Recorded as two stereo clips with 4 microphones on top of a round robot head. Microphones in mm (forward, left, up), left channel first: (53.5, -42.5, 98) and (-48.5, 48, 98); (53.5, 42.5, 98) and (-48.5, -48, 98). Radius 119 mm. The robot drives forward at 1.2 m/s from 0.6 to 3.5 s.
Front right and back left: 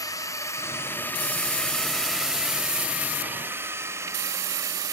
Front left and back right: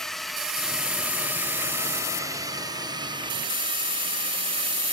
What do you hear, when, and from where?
0.0 s a drone: 40° right; by 4.9 s 165° right